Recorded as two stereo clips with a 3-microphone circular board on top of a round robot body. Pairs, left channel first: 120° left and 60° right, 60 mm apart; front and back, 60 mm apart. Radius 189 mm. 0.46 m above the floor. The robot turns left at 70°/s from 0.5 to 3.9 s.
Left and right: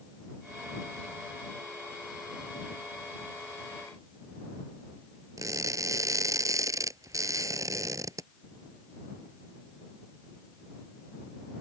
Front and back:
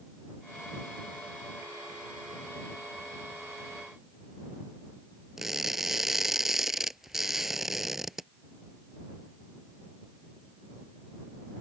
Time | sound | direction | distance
5.4 | crushing | 95° right | ?